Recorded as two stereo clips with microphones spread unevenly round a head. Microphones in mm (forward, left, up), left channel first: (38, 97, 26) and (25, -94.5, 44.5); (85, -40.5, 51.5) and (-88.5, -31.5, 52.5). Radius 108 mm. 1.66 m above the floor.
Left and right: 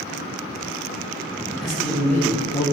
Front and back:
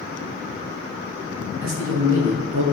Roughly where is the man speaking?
Behind.